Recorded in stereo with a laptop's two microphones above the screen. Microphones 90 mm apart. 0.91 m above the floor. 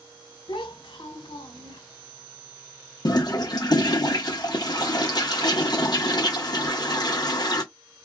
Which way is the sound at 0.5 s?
70° left (ahead or behind).